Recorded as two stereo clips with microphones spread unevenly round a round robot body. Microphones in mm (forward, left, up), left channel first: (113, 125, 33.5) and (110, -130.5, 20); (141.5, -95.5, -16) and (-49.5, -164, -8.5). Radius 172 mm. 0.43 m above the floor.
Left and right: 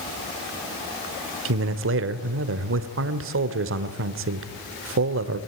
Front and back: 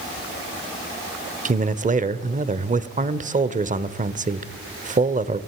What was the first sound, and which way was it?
A man speaking, 115° right.